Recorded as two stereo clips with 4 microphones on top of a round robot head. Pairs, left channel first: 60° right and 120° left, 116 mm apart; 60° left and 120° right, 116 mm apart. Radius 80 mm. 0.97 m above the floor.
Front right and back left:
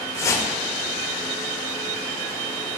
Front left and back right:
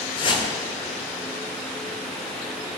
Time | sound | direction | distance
0.2 | a whoosh | 10° left | 1.9 m